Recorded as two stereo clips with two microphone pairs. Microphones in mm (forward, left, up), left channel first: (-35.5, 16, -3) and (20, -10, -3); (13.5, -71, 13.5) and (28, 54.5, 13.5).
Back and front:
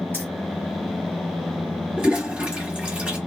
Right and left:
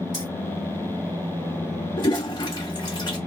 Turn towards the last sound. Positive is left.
turn(degrees=-90)